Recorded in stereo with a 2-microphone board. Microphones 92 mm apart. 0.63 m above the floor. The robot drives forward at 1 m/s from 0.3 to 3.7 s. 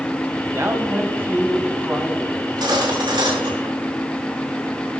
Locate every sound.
0.5 s a man speaking: 30° right (ahead or behind), 2.5 m; by 2.3 s 20° right (ahead or behind), 4.5 m
2.4 s cutlery clinking: 55° right (ahead or behind), 6 m; by 3.8 s 70° right (ahead or behind), 5.5 m